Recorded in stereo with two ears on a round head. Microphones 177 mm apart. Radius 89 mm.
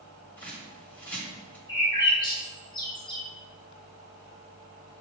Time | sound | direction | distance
0.4 | a bird | 10° left (ahead or behind) | 1.2 m
1.7 | a bird | 25° left (ahead or behind) | 0.9 m